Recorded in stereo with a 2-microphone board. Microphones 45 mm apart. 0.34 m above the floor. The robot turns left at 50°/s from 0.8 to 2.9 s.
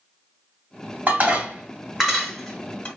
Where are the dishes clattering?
40° right (ahead or behind), 1.1 m; by 2.9 s 25° left (ahead or behind), 1.1 m.